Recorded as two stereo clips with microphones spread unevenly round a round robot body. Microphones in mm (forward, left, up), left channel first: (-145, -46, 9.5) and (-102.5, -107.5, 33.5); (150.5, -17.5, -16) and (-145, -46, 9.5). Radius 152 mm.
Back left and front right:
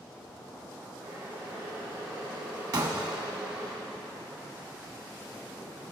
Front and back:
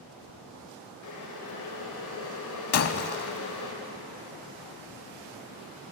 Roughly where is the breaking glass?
Ahead right.